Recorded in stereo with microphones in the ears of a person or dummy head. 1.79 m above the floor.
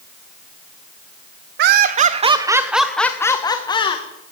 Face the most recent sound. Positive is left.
turn(degrees=35)  # may be behind; listen again after turning